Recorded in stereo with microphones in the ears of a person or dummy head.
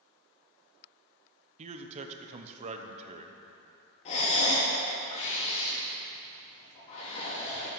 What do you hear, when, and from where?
1.6 s a man speaking: 40° right (ahead or behind), 0.9 m
4.0 s breathing: 40° left (ahead or behind), 2.5 m